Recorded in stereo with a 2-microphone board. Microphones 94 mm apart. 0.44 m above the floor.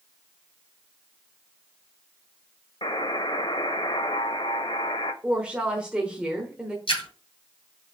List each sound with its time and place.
2.8 s a buzzer: 65° left (ahead or behind), 0.6 m
5.2 s a woman speaking: 10° right (ahead or behind), 1.0 m
6.9 s a splash: 70° left (ahead or behind), 3 m